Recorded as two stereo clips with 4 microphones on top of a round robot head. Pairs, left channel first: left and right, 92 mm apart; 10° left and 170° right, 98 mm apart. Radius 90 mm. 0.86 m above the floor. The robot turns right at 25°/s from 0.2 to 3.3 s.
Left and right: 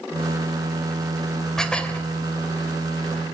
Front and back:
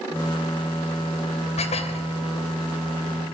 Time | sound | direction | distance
1.6 | dishes clattering | 5° left | 2.5 m